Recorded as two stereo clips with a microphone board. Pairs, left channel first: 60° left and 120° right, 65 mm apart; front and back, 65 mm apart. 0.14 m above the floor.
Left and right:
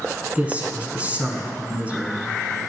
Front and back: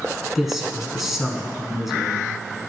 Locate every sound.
0.3 s a man speaking: 100° right, 1.1 m